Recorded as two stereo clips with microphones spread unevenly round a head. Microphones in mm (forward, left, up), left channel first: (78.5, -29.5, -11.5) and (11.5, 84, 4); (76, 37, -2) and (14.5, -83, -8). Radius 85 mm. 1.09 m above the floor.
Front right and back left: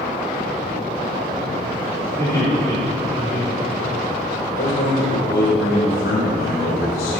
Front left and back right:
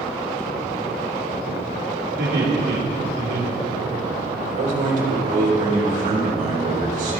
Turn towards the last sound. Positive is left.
turn(degrees=-95)